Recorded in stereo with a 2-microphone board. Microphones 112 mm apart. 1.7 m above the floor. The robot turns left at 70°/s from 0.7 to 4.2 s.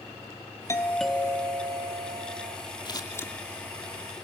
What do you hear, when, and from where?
0.7 s a doorbell: 25° left, 1.7 m; by 2.6 s 105° right, 1.7 m
2.9 s scissors: 45° left (ahead or behind), 2 m; by 3.3 s 15° left (ahead or behind), 2 m